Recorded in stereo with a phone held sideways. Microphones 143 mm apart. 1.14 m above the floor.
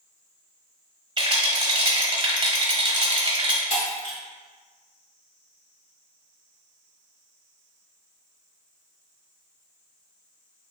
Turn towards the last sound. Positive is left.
turn(degrees=70)  # may be behind; listen again after turning